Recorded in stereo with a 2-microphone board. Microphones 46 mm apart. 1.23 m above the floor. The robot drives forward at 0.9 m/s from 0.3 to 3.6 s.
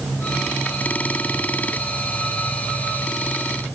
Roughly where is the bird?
I don't hear a bird.